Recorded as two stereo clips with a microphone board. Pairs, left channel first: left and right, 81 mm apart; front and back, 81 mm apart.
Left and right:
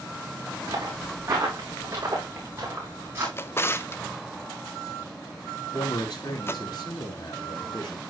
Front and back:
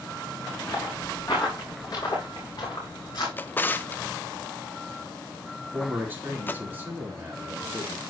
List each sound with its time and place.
0.7 s footsteps: 50° right, 7 m; by 3.3 s 30° right, 6.5 m
3.4 s a drawer: 50° left, 0.5 m
5.7 s a man speaking: 115° left, 3 m